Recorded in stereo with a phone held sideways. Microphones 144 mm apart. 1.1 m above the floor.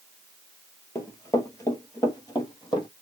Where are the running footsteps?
20° left (ahead or behind), 1.1 m; by 2.9 s 30° left (ahead or behind), 1.5 m.